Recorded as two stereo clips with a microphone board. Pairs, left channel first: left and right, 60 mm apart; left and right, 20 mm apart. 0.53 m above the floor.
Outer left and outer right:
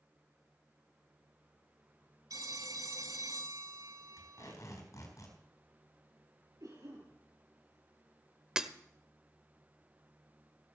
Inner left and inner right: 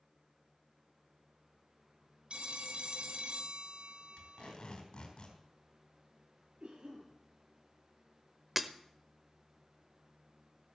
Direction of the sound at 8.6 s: 10° right (ahead or behind).